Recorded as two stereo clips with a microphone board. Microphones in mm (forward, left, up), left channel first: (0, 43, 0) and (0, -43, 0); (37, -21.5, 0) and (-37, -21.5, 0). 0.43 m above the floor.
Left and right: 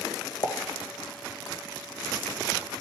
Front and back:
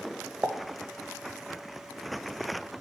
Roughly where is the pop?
Left.